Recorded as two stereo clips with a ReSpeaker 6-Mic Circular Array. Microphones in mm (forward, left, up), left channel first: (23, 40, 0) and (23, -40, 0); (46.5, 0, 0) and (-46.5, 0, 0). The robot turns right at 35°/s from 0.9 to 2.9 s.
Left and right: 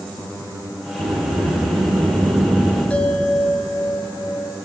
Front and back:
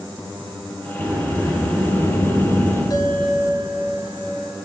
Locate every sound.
1.0 s a sliding door: 110° right, 5 m; by 2.8 s 50° right, 5 m
2.9 s a bell: 20° left, 2.0 m